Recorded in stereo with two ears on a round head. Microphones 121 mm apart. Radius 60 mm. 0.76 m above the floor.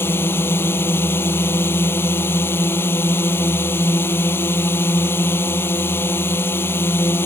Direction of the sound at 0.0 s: 15° left (ahead or behind).